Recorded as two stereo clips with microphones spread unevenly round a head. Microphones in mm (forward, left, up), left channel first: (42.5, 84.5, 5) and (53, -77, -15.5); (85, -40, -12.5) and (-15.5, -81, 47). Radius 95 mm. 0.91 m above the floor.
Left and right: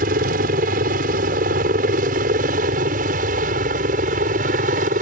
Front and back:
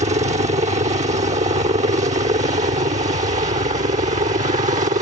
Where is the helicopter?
130° right; by 5.0 s 135° right.